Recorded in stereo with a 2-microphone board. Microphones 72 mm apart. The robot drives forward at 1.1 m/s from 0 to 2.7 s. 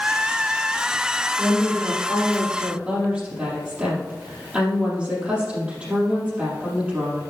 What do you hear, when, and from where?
1.4 s a woman speaking: 25° right (ahead or behind), 2.5 m; by 7.2 s 15° right (ahead or behind), 4 m